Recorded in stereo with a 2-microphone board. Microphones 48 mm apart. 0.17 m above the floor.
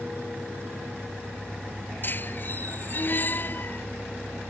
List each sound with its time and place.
2.0 s a squeak: 45° left (ahead or behind)